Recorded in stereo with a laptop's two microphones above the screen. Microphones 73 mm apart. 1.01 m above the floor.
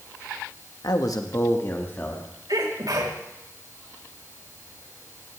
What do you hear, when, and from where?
0.8 s a man speaking: 65° left (ahead or behind), 1.3 m; by 2.3 s 20° left (ahead or behind), 2 m
2.5 s a sneeze: 65° right (ahead or behind), 4.5 m